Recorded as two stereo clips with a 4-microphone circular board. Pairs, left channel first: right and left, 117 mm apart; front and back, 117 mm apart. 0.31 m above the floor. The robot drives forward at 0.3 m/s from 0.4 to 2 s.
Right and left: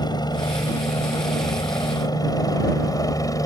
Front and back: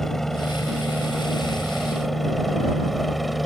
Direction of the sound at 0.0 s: 85° right.